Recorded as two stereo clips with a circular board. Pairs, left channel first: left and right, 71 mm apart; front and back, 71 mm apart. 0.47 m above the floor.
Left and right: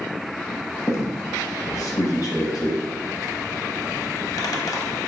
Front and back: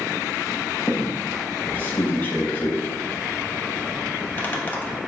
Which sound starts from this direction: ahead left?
A squeak, at 0.9 s.